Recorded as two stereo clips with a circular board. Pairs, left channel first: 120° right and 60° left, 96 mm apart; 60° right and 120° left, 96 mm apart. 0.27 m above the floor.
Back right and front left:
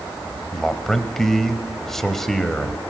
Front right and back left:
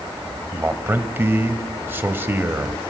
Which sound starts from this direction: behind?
A man speaking, at 0.5 s.